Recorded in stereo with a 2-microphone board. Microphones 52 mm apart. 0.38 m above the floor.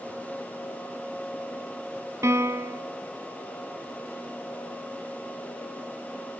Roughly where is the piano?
Right.